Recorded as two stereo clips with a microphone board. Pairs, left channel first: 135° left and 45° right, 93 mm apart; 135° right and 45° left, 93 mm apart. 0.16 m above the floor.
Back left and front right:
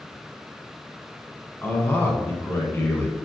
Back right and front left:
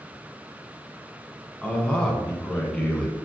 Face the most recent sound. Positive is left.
turn(degrees=160)